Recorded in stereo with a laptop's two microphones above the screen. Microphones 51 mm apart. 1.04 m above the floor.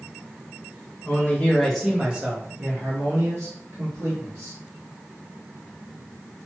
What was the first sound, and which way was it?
A man speaking, 30° left (ahead or behind).